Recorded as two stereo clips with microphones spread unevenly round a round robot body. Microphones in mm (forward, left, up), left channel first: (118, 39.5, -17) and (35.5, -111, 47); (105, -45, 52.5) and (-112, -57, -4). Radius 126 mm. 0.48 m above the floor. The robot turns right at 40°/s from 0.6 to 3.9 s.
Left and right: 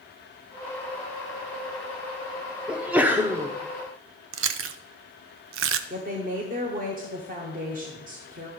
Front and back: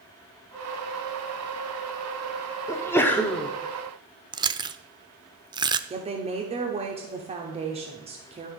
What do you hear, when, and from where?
2.7 s a sneeze: 95° left, 0.7 m; by 3.5 s 130° left, 0.7 m
4.3 s chewing: 115° right, 0.5 m
5.9 s a woman speaking: 170° right, 1.0 m